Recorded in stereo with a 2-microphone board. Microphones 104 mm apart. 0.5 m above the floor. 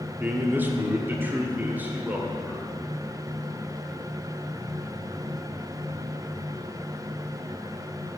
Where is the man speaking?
20° right (ahead or behind), 1.1 m; by 2.7 s 15° right (ahead or behind), 2.0 m.